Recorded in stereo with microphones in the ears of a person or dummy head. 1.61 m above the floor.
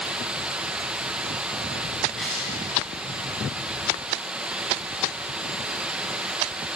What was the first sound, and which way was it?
Running water, 10° right (ahead or behind).